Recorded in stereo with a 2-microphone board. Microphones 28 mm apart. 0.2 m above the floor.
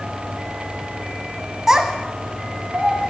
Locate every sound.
1.7 s a child speaking: 15° right (ahead or behind), 0.6 m; by 3.1 s 55° right (ahead or behind), 2.5 m